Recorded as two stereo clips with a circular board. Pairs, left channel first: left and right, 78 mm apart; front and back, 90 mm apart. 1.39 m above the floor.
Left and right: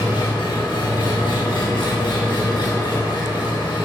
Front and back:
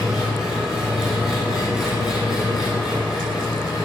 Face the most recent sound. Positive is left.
turn(degrees=95)